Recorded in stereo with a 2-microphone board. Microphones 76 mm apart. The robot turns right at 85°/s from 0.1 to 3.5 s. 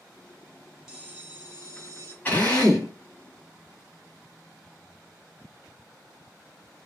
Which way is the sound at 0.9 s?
170° right.